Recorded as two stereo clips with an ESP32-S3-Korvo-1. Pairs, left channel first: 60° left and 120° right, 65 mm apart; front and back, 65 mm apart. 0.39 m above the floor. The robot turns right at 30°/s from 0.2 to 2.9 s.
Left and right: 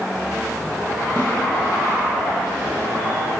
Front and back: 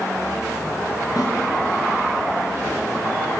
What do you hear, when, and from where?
1.2 s a snare drum: 25° left, 5 m; by 1.3 s 30° left, 5 m